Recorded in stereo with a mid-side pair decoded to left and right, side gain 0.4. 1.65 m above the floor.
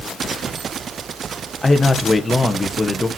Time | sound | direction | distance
1.6 | a man speaking | 20° left | 1.6 m